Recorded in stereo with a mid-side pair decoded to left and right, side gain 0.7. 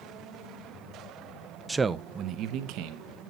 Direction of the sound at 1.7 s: 5° right.